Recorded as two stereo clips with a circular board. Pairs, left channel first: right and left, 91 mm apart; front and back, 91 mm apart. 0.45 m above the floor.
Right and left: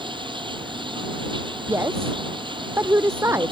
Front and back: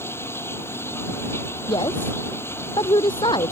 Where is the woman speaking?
30° left.